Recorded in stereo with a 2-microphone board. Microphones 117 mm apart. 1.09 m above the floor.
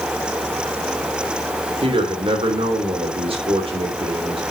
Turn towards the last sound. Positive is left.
turn(degrees=-55)  # may be behind; listen again after turning